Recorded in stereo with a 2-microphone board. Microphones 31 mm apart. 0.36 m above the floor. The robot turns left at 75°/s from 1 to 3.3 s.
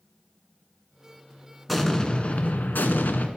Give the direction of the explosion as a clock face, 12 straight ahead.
6 o'clock.